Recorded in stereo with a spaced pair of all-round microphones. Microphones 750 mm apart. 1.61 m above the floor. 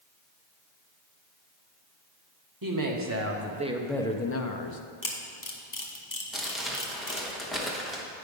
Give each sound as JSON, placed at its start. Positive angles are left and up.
{"t": 2.6, "sound": "a woman speaking", "side_deg": -30, "distance_m": 1.2}
{"t": 5.0, "sound": "a camera shutter", "side_deg": 25, "distance_m": 1.0}
{"t": 6.3, "sound": "crumpling", "side_deg": 0, "distance_m": 1.0}